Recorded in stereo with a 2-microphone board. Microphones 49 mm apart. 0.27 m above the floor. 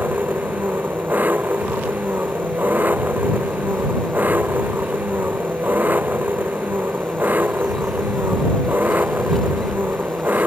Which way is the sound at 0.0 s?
35° right (ahead or behind).